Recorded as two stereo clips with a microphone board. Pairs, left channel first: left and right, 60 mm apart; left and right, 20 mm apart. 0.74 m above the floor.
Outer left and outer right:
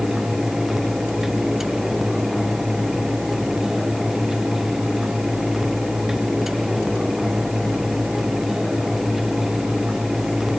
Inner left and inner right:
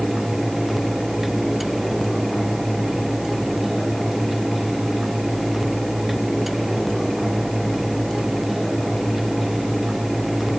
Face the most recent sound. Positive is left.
No sound to turn to.